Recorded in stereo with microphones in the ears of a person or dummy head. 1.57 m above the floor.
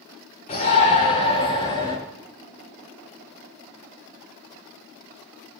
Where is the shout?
35° left (ahead or behind), 5 m; by 2.0 s 20° left (ahead or behind), 5.5 m.